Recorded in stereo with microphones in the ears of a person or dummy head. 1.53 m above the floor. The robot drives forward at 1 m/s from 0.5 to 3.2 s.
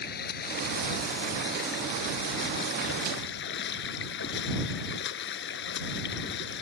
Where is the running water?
55° left (ahead or behind); by 6.6 s 60° left (ahead or behind).